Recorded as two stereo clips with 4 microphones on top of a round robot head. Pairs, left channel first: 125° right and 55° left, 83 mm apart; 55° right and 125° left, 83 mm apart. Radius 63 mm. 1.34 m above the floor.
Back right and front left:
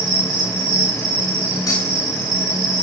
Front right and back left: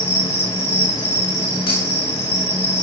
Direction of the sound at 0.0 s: 5° left.